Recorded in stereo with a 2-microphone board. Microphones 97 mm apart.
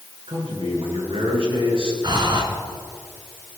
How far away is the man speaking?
About 6.5 m.